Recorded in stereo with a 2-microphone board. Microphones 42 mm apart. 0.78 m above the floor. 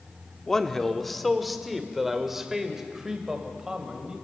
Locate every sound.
0.5 s a man speaking: 15° left (ahead or behind), 1.4 m; by 4.2 s 15° right (ahead or behind), 3.5 m